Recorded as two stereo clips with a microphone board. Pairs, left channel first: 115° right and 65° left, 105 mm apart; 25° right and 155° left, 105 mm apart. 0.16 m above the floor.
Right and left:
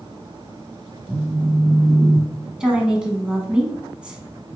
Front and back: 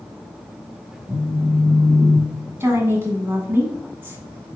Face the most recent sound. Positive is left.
turn(degrees=140)